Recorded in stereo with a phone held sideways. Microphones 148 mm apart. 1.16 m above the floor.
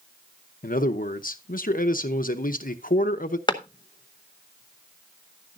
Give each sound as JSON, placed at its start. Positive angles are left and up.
{"t": 0.6, "sound": "a man speaking", "side_deg": 70, "distance_m": 0.8}
{"t": 3.5, "sound": "a clap", "side_deg": 30, "distance_m": 0.8}